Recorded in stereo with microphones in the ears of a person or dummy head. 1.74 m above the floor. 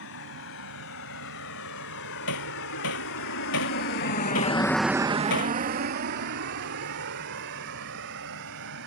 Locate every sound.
0.0 s a vehicle: 80° left; by 8.9 s 70° right (ahead or behind)
2.3 s hammering: 70° left (ahead or behind)